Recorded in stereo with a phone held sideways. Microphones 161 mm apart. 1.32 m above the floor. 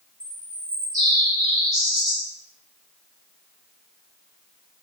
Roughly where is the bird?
Right.